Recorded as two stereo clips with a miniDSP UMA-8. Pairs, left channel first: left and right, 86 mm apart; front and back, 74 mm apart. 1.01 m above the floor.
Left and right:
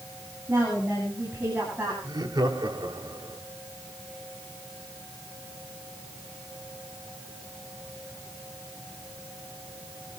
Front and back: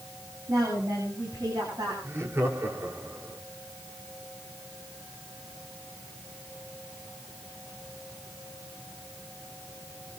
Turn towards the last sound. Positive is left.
turn(degrees=-130)